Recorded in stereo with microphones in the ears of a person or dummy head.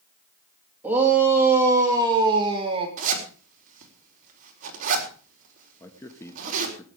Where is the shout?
10° right (ahead or behind), 3 m; by 2.9 s 30° right (ahead or behind), 2.5 m.